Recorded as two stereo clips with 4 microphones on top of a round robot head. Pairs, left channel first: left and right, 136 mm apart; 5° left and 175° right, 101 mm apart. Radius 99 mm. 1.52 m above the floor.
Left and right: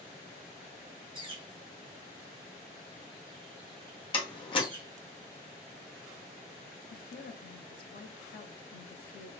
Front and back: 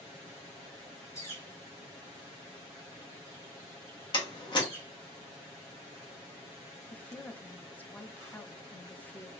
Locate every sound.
1.1 s a bird: 40° right, 1.4 m
4.1 s a door slam: 40° left, 0.9 m
6.9 s a woman speaking: 80° left, 0.7 m